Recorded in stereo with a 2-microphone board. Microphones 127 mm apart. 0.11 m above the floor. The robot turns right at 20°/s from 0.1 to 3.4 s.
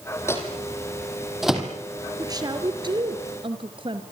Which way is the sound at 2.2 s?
30° right (ahead or behind).